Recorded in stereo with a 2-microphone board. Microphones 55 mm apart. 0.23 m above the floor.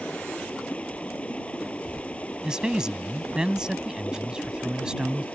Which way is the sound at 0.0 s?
20° left (ahead or behind).